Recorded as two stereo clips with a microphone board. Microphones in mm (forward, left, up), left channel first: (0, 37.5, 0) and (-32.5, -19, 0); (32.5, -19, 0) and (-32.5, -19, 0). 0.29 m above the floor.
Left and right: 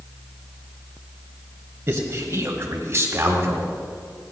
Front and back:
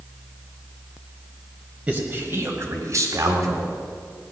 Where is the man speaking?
115° right, 1.5 m; by 3.7 s 175° right, 2.5 m.